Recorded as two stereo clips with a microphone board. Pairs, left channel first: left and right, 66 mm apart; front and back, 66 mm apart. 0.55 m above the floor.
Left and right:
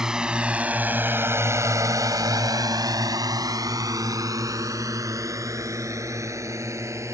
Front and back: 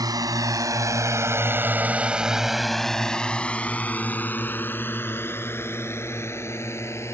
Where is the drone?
170° right; by 7.1 s 50° right.